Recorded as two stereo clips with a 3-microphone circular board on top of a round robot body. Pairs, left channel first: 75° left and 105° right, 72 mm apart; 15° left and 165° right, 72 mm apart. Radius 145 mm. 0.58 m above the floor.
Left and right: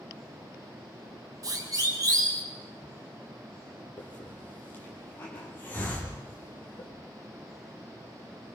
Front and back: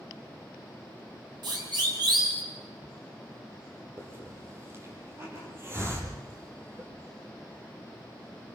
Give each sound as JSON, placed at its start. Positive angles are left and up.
{"t": 1.4, "sound": "a siren", "azimuth_deg": -145, "distance_m": 8.0}
{"t": 4.0, "sound": "a hiss", "azimuth_deg": 140, "distance_m": 6.0}